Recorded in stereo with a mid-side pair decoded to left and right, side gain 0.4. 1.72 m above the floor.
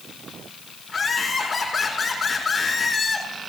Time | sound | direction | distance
0.9 | laughter | 30° left | 6 m